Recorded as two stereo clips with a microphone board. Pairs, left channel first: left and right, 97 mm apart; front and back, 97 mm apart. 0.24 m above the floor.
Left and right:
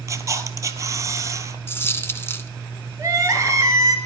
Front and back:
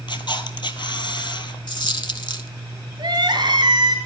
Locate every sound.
0.1 s a camera shutter: 35° right, 1.1 m
1.7 s a dropped coin: 30° left, 0.8 m
3.0 s crying: 145° right, 2 m